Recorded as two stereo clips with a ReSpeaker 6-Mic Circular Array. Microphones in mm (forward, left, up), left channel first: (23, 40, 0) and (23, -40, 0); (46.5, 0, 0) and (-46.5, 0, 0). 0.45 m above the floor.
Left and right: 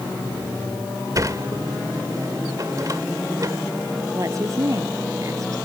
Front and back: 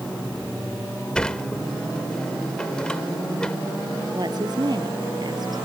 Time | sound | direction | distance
1.1 | a sliding door | 75° right | ?
4.1 | a woman speaking | 140° right | ?